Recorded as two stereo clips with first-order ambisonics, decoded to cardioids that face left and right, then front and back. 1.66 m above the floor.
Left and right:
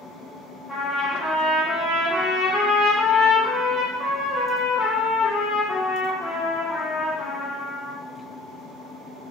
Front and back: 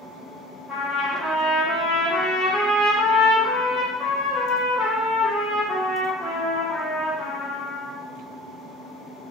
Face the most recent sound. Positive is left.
turn(degrees=55)